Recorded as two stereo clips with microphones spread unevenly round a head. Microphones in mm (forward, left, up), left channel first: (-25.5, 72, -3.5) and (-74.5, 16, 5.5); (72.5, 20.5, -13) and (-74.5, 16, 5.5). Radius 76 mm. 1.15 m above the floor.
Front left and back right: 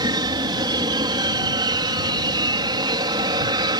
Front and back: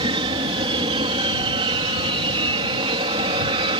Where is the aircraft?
125° right.